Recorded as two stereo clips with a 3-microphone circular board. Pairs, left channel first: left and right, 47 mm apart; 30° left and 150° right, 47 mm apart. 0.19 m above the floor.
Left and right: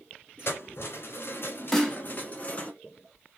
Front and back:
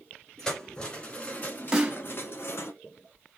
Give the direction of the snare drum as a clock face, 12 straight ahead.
7 o'clock.